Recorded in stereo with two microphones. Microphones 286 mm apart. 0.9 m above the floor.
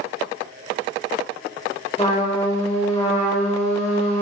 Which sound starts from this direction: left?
A trumpet, at 2.0 s.